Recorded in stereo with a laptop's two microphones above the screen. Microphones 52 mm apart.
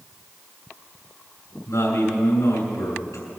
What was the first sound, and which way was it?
A man speaking, 70° left (ahead or behind).